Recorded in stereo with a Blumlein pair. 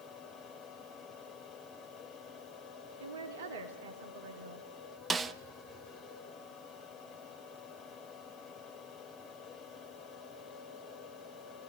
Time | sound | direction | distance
0.0 | a fan | 30° left | 4.5 m
3.0 | a woman speaking | 55° right | 2.5 m
5.1 | a snare drum | 15° right | 0.7 m